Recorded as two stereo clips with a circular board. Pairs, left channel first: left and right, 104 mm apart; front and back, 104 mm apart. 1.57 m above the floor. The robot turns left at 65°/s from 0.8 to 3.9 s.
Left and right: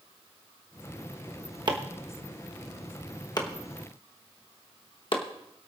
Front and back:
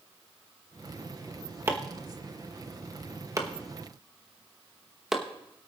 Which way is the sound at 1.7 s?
120° right.